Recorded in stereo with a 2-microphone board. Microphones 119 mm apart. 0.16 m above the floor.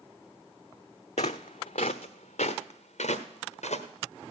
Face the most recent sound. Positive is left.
turn(degrees=70)  # may be behind; listen again after turning